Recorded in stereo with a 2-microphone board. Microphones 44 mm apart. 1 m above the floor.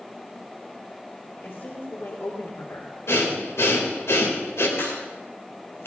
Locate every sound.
1.4 s a woman speaking: 55° left (ahead or behind), 3 m; by 3.0 s 80° left, 1.7 m
3.1 s breathing: 75° left (ahead or behind), 3 m
4.8 s a crack: 65° left (ahead or behind), 5 m